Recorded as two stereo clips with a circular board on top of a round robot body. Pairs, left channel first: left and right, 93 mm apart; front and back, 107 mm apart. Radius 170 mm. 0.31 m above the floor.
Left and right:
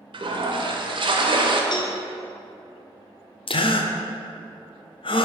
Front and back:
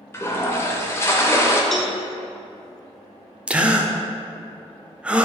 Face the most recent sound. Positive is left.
turn(degrees=100)